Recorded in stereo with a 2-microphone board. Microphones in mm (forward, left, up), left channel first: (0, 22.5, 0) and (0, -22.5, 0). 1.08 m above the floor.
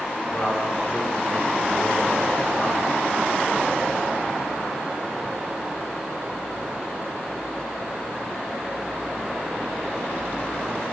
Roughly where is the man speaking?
Left.